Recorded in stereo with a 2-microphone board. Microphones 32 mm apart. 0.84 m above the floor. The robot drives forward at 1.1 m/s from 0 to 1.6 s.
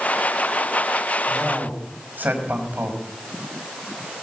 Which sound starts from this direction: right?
A man speaking, at 1.3 s.